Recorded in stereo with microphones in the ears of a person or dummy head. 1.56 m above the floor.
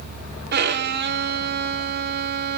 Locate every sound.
0.5 s a violin: 55° right (ahead or behind), 1.4 m